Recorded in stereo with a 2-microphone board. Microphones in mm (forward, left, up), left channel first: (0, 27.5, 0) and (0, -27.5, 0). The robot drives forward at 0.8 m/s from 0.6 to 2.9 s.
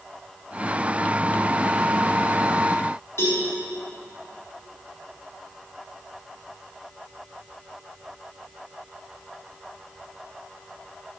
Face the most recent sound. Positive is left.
turn(degrees=55)  # may be behind; listen again after turning